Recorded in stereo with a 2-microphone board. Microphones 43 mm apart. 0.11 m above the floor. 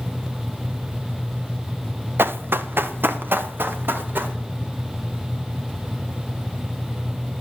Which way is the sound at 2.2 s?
55° right (ahead or behind).